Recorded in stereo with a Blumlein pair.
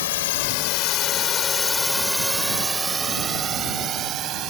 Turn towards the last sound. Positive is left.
turn(degrees=-35)